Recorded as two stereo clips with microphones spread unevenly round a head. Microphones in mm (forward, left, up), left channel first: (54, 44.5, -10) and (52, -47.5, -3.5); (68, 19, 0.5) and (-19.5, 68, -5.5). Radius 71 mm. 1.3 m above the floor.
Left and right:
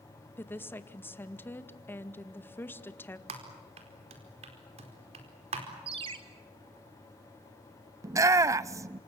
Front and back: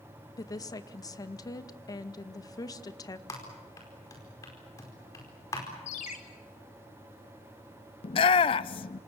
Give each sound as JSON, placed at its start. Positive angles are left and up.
{"t": 0.4, "sound": "a woman speaking", "azimuth_deg": 25, "distance_m": 1.9}
{"t": 3.3, "sound": "typing on a keyboard", "azimuth_deg": -100, "distance_m": 4.5}
{"t": 5.9, "sound": "a ringtone", "azimuth_deg": -75, "distance_m": 2.5}
{"t": 8.0, "sound": "a shout", "azimuth_deg": -45, "distance_m": 0.6}